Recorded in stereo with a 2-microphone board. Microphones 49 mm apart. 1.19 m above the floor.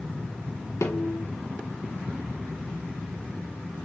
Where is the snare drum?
85° left, 2.5 m.